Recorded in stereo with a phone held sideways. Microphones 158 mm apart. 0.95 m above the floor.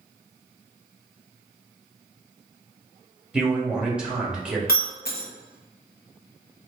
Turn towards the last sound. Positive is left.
turn(degrees=75)  # may be behind; listen again after turning